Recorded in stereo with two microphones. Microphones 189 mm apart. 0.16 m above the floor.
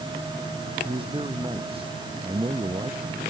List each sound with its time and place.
0.8 s a man speaking: 30° right (ahead or behind)